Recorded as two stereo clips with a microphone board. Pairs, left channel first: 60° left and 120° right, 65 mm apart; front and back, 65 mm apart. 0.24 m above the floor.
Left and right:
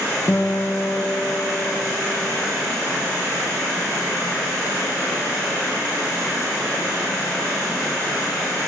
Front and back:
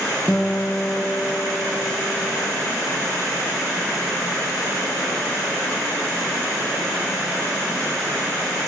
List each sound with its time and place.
0.3 s a guitar: 75° left, 0.6 m